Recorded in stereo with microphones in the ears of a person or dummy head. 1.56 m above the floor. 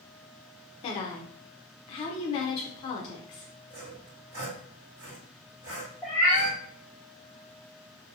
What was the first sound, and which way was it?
A woman speaking, 35° left (ahead or behind).